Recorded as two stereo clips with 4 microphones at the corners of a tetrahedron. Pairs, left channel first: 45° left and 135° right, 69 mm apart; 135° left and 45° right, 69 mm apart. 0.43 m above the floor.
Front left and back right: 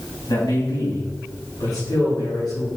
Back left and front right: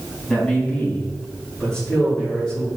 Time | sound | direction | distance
0.3 | a man speaking | 60° left | 3.5 m